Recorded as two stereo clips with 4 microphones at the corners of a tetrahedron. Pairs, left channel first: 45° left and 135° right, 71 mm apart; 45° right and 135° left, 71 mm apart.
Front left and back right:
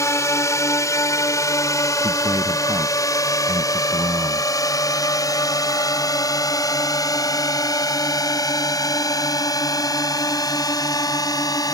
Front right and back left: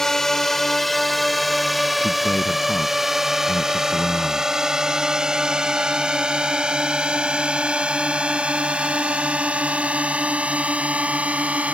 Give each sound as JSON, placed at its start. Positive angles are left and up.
{"t": 0.0, "sound": "a drone", "azimuth_deg": 40}
{"t": 2.0, "sound": "a man speaking", "azimuth_deg": -115}